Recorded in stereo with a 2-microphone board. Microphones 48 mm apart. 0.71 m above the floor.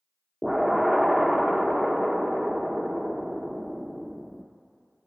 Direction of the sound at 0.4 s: Centre (ahead or behind).